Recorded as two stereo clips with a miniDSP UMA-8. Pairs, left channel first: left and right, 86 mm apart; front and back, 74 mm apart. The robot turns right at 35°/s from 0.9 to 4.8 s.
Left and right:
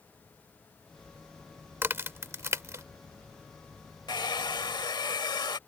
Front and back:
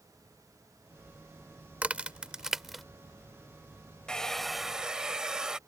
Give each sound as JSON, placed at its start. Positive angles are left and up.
{"t": 1.8, "sound": "a crack", "azimuth_deg": -125}
{"t": 4.1, "sound": "a hair dryer", "azimuth_deg": 75}